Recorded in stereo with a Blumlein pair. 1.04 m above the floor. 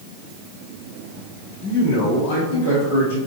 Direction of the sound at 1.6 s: 55° left.